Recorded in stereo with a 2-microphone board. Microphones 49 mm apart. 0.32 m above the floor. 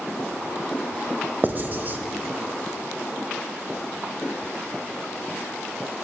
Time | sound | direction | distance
1.4 | writing | 40° right (ahead or behind) | 0.8 m